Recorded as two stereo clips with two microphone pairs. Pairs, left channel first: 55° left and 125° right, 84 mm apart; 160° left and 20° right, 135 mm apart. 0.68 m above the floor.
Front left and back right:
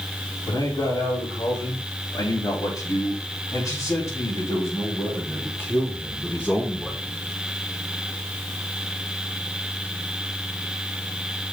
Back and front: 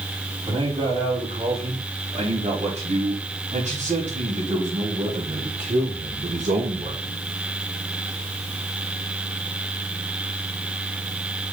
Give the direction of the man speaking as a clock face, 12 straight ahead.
11 o'clock.